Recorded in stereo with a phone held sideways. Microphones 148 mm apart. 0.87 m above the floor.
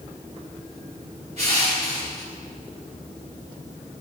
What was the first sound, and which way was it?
Crushing, 50° right (ahead or behind).